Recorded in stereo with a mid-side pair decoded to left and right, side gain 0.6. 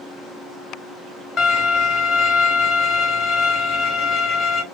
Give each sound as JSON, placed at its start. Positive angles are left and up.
{"t": 1.4, "sound": "a violin", "azimuth_deg": 40, "distance_m": 1.5}